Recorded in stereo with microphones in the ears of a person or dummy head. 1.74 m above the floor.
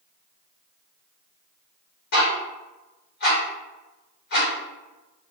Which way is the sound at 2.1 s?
45° left (ahead or behind).